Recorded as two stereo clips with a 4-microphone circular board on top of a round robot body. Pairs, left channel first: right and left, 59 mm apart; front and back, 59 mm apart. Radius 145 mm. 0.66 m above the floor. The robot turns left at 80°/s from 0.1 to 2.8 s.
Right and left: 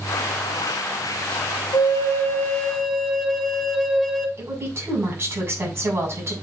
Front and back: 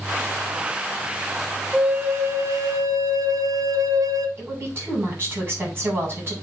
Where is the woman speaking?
130° left, 5 m.